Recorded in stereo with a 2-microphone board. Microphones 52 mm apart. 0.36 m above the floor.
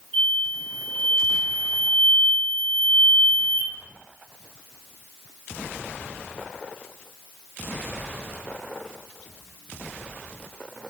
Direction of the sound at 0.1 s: 15° right (ahead or behind).